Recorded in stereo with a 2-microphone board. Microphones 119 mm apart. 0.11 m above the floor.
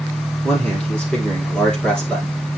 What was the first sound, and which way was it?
A man speaking, 10° left (ahead or behind).